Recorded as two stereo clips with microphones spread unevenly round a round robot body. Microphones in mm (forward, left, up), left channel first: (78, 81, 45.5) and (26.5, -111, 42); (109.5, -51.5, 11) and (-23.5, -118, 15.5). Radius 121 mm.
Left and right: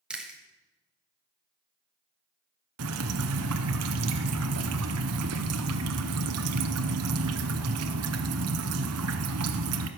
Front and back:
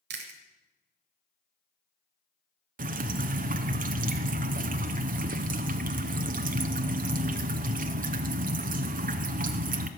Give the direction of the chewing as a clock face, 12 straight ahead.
6 o'clock.